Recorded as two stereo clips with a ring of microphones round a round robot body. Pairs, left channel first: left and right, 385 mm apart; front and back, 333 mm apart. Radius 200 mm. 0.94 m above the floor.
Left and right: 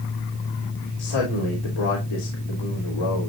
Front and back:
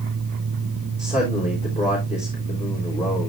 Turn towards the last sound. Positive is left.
turn(degrees=70)